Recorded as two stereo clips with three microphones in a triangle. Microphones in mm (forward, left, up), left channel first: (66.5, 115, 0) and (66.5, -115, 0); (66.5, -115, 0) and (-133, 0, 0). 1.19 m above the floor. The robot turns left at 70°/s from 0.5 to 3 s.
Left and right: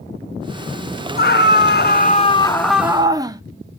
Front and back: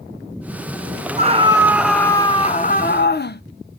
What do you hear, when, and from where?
1.2 s a scream: 110° left, 0.5 m; by 3.4 s 20° right, 0.5 m